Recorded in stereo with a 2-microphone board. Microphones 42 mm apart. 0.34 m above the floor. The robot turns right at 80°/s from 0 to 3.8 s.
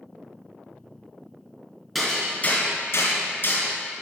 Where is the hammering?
5° right (ahead or behind), 2 m; by 3.7 s 40° left (ahead or behind), 2 m.